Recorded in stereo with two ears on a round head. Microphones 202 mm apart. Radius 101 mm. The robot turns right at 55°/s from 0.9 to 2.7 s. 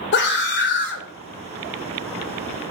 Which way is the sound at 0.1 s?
50° left (ahead or behind).